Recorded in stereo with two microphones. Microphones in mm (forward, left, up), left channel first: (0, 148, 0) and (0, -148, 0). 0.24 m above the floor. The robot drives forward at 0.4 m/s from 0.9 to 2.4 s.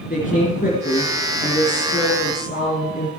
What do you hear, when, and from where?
0.1 s a woman speaking: 25° left (ahead or behind), 3.5 m